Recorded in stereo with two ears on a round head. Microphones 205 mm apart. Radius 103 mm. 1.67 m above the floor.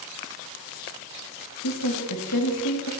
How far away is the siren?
No siren in this recording.